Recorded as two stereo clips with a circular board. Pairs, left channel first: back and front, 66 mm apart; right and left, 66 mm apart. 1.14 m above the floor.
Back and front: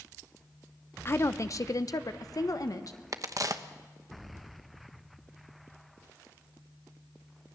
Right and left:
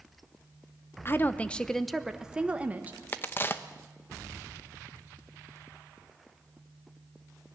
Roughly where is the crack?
Ahead right.